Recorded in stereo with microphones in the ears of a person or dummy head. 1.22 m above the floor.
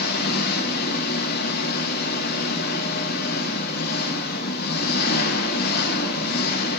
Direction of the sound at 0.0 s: 50° left (ahead or behind).